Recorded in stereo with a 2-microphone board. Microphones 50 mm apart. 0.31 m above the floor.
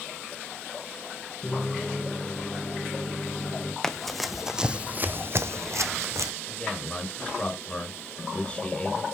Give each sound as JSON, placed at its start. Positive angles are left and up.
{"t": 1.4, "sound": "a microwave", "side_deg": 20, "distance_m": 2.5}
{"t": 3.8, "sound": "running footsteps", "side_deg": 10, "distance_m": 1.1}
{"t": 6.5, "sound": "a man speaking", "side_deg": 25, "distance_m": 3.5}